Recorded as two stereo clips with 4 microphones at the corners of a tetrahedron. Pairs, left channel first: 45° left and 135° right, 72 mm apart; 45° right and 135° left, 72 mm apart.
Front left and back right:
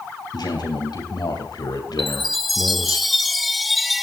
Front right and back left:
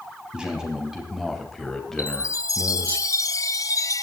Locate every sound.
0.3 s a man speaking: 60° left, 3.5 m; by 3.0 s 20° left, 2.5 m
2.0 s a chime: 45° right, 0.7 m